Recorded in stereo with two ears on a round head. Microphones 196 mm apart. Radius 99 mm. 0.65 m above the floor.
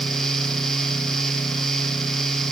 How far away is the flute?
I don't hear a flute.